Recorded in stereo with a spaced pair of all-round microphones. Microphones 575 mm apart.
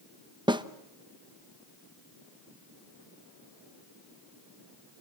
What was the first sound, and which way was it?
A snare drum, 10° right (ahead or behind).